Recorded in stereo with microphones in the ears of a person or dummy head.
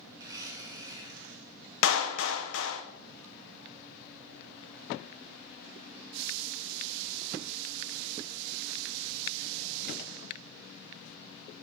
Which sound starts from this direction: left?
A clap, at 1.8 s.